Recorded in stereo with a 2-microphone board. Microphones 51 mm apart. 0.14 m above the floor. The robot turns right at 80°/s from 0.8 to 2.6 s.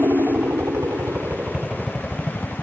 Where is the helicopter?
85° right; by 2.6 s 55° left.